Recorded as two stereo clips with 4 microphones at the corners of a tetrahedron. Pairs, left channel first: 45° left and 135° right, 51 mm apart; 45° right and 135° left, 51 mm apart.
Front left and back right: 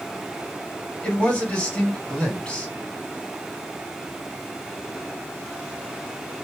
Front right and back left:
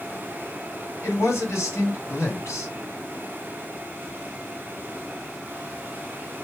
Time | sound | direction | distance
1.0 | a man speaking | 25° right | 2.5 m